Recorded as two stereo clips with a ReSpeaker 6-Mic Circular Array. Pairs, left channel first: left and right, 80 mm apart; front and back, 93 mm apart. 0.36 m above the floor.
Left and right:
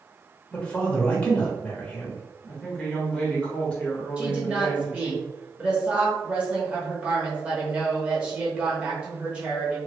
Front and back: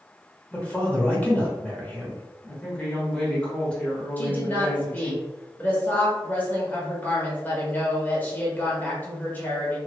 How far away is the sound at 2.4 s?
About 1.0 m.